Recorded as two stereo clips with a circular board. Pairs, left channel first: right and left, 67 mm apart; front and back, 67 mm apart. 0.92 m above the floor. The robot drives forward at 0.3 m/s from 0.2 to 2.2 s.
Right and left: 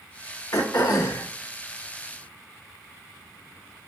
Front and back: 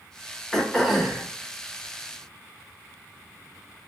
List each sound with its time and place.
0.5 s throat clearing: 85° right, 0.9 m; by 1.3 s 100° right, 0.9 m